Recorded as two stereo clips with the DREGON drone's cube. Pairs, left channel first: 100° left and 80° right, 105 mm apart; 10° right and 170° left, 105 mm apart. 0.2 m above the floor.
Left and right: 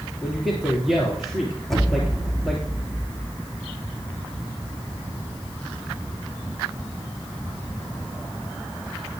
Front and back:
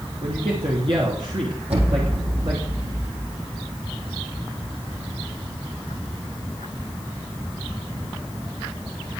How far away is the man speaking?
About 3 m.